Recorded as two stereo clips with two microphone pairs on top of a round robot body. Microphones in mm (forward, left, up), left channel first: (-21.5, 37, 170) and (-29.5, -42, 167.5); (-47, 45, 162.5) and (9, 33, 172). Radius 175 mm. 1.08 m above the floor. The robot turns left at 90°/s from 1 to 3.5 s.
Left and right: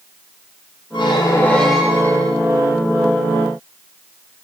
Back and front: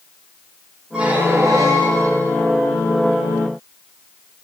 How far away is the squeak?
About 1.0 m.